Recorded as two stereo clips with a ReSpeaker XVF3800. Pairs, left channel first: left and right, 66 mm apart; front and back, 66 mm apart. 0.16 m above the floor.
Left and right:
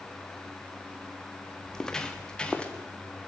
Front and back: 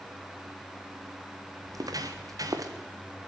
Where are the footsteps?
170° left, 2.5 m; by 2.7 s 160° left, 3 m.